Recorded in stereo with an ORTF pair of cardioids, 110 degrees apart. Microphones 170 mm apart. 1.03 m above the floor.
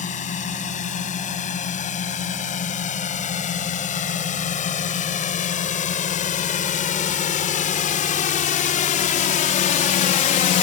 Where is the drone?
45° left; by 10.6 s 60° left.